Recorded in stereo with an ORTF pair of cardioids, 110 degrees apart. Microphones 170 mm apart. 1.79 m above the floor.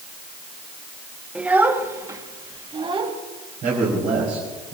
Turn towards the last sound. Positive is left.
turn(degrees=-55)